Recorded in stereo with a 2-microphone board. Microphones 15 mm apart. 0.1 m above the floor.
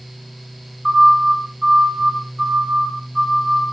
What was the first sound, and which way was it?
A siren, 40° right (ahead or behind).